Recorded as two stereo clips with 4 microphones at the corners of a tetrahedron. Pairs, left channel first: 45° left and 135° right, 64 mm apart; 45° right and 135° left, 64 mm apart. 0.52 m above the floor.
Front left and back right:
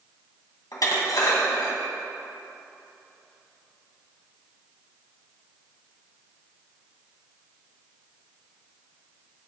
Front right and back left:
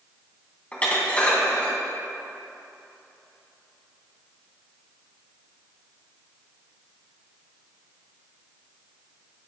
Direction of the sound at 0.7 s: 25° left.